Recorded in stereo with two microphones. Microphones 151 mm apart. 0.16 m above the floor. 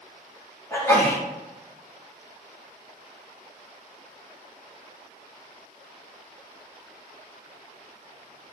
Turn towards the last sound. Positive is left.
turn(degrees=20)  # may be behind; listen again after turning